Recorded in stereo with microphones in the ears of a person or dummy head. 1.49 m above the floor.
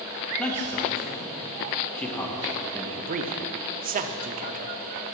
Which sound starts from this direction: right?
A man speaking, at 3.0 s.